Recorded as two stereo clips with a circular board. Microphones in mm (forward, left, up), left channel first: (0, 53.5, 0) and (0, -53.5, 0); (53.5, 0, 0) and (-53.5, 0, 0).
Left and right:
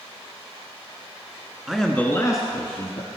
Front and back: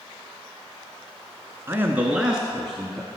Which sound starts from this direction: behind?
A man speaking, at 1.7 s.